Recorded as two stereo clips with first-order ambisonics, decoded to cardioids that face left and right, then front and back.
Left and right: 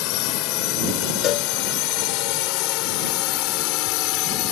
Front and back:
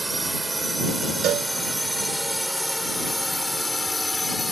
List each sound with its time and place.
0.0 s a drone: 100° left; by 4.5 s 80° left
1.2 s a cowbell: 135° left